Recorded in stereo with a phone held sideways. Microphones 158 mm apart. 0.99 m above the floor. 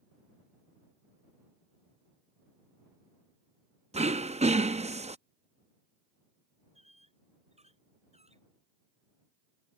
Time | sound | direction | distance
3.9 | throat clearing | 45° right (ahead or behind) | ?
6.8 | a squeak | 40° right (ahead or behind) | ?